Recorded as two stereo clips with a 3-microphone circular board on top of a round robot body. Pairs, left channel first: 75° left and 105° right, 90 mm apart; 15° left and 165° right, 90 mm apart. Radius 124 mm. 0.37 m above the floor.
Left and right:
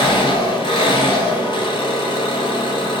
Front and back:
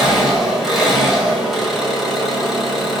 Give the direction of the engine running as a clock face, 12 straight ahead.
8 o'clock.